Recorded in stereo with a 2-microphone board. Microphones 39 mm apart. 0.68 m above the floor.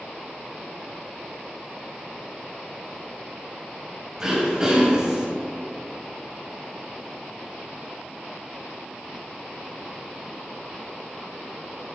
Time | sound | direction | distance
4.2 | throat clearing | 20° right (ahead or behind) | 2.5 m